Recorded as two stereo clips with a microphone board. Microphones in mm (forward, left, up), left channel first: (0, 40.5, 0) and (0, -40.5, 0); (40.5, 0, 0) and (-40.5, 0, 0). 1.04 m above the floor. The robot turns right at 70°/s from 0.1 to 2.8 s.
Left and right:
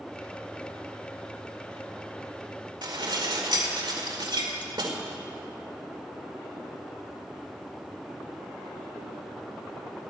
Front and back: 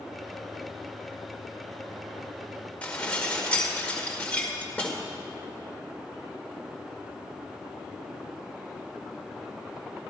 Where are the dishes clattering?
70° right, 2 m.